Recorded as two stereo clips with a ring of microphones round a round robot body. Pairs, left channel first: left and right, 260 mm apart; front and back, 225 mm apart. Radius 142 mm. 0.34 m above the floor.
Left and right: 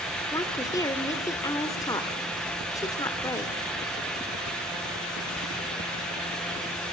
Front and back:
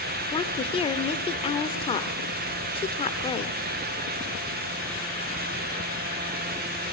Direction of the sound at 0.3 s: 30° left.